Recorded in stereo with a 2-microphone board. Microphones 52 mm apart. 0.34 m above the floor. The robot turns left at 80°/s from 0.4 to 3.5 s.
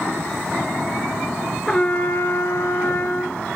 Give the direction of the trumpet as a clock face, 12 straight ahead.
6 o'clock.